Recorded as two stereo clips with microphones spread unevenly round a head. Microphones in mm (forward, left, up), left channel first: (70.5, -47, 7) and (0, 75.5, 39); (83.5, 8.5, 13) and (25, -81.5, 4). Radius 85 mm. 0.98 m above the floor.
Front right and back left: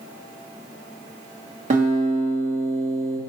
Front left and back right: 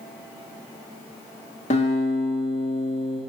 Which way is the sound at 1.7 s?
85° left.